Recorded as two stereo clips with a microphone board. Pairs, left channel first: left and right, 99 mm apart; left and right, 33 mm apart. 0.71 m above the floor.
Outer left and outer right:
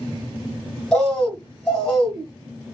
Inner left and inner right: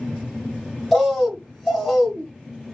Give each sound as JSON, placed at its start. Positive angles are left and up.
{"t": 0.9, "sound": "a bird", "side_deg": 5, "distance_m": 1.2}